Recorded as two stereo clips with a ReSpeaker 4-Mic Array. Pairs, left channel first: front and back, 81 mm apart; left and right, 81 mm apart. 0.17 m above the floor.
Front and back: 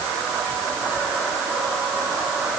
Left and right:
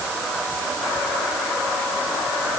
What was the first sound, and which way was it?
Only background noise.